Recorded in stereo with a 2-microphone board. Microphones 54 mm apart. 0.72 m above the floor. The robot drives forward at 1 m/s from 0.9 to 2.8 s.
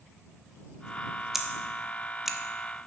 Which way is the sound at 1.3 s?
5° right (ahead or behind).